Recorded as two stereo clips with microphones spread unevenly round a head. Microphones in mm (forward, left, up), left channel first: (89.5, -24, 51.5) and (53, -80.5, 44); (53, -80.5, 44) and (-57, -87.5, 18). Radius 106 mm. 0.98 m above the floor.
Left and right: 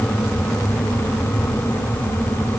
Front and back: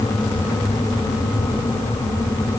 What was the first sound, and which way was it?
Only background noise.